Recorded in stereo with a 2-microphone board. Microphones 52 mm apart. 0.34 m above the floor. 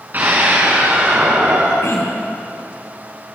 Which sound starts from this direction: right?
A scream, at 0.1 s.